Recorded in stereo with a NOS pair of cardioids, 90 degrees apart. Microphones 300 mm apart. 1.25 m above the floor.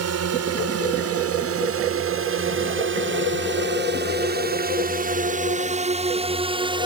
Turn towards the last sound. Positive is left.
turn(degrees=-15)